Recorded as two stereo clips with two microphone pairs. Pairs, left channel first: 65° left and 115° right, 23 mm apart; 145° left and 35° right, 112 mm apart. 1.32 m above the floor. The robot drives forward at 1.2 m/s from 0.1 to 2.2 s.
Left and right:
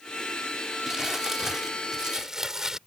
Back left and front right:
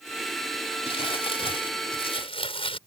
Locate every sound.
0.9 s crumpling: 175° left